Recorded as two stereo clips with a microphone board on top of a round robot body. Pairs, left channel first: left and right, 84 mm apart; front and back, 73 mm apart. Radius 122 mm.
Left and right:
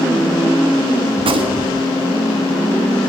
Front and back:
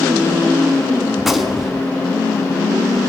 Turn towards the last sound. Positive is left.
turn(degrees=-90)